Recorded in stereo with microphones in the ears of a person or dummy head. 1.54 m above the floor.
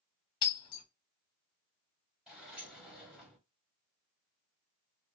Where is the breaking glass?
25° left (ahead or behind), 0.9 m.